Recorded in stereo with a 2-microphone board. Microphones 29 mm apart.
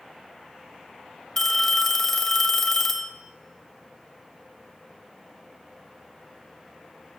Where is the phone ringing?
15° left (ahead or behind), 0.6 m.